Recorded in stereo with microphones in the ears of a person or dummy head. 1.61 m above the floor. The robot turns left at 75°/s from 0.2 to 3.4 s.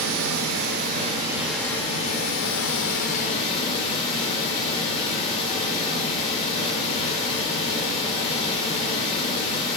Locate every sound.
0.0 s running water: 85° right, 0.8 m; by 9.8 s 35° left, 0.8 m